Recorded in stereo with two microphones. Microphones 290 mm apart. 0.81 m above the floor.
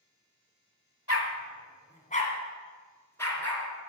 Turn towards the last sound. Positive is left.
turn(degrees=5)  # may be behind; listen again after turning